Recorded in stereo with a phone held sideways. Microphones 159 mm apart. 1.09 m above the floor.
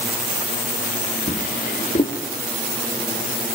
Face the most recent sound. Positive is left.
turn(degrees=60)  # may be behind; listen again after turning